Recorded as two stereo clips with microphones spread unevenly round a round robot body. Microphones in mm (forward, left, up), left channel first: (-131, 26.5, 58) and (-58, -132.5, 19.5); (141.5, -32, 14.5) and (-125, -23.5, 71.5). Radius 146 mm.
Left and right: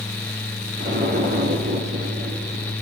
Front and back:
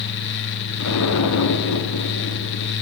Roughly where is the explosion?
Ahead.